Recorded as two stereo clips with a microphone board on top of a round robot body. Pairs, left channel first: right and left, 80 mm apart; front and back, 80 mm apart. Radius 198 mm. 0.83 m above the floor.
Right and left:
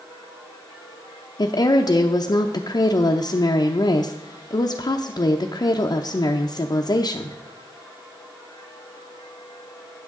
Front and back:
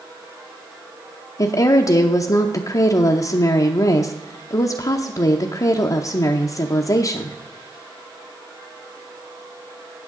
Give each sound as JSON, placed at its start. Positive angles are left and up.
{"t": 1.4, "sound": "a woman speaking", "azimuth_deg": -50, "distance_m": 0.7}